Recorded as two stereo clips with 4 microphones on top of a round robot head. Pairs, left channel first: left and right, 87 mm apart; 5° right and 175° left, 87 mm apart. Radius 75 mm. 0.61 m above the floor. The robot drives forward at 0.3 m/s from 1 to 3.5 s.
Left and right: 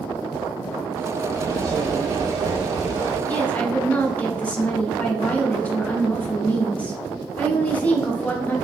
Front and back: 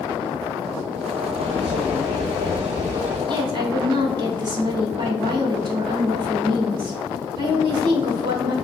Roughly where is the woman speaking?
Behind.